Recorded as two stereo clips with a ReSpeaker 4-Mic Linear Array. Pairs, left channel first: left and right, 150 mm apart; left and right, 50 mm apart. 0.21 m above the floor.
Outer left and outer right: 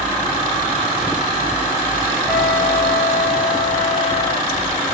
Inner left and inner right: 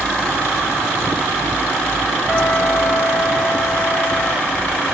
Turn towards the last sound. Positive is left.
turn(degrees=-10)  # may be behind; listen again after turning